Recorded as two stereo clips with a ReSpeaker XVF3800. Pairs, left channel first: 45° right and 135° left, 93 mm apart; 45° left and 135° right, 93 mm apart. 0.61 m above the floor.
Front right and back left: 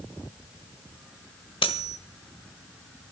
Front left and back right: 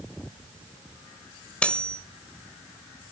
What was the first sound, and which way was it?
Cutlery clinking, 30° right.